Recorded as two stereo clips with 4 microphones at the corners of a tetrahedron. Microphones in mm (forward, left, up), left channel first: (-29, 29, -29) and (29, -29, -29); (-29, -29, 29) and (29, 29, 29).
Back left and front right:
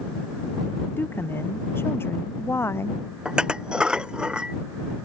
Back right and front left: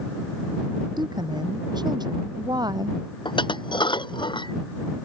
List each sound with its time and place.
1.0 s a woman speaking: 70° left; by 3.0 s 75° left
3.2 s dishes clattering: 125° right